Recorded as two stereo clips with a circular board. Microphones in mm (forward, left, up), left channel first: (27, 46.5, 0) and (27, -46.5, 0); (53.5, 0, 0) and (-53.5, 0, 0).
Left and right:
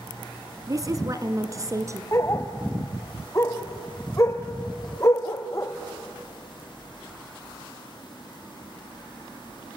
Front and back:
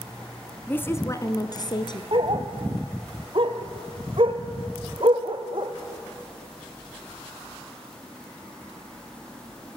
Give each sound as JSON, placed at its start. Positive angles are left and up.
{"t": 0.7, "sound": "a woman speaking", "azimuth_deg": -65, "distance_m": 1.3}
{"t": 2.1, "sound": "a dog barking", "azimuth_deg": 150, "distance_m": 1.8}